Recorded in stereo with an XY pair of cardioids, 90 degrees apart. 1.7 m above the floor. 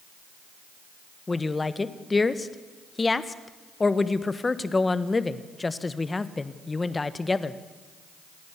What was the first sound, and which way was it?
A woman speaking, 25° left.